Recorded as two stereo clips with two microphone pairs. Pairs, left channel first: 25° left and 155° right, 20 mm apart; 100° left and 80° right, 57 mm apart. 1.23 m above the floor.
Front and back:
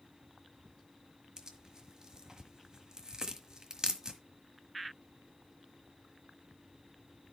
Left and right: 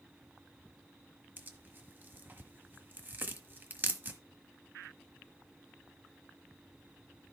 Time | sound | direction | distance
1.4 | tearing paper | 110° right | 1.4 m